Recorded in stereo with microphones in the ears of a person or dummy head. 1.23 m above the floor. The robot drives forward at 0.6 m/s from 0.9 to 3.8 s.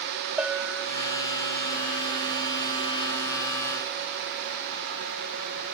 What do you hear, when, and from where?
0.4 s a bell: 5° right (ahead or behind)